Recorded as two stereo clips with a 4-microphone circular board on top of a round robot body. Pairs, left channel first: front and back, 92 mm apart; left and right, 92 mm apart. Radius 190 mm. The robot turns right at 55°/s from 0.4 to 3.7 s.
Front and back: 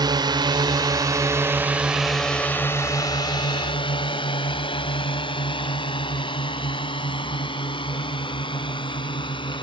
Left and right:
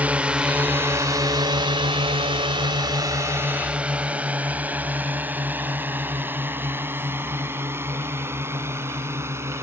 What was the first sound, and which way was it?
A drone, 160° right.